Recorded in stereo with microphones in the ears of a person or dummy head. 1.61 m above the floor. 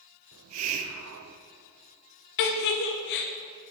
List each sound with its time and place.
0.3 s a hiss: 85° right, 0.7 m
2.4 s a giggle: 60° left (ahead or behind), 0.9 m